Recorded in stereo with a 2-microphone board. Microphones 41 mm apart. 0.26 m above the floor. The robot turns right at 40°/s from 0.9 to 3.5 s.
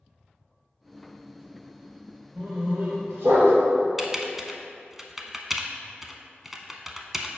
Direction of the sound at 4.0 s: 5° right (ahead or behind).